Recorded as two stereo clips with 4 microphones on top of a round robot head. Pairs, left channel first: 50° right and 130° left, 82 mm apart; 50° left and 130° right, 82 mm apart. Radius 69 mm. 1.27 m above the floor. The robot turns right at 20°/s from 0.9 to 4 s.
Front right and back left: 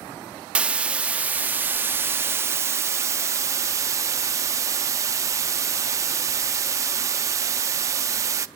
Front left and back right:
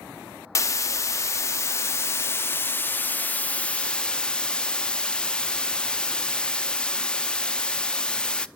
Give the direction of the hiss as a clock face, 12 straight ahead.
10 o'clock.